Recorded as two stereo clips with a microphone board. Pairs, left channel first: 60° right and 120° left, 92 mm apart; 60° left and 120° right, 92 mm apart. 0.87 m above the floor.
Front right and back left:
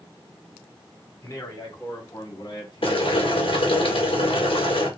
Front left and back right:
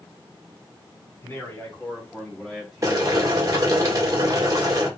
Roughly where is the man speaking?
Ahead.